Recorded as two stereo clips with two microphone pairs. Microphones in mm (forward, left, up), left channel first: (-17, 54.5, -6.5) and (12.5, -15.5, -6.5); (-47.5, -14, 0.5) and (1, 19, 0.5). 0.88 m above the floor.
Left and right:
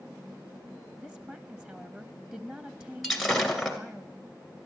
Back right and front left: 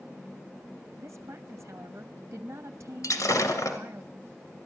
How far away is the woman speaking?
About 1.1 m.